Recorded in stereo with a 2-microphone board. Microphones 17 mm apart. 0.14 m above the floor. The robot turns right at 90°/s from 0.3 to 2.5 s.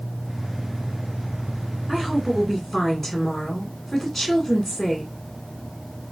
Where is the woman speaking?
10° right (ahead or behind), 1.6 m; by 5.1 s 15° left (ahead or behind), 1.6 m.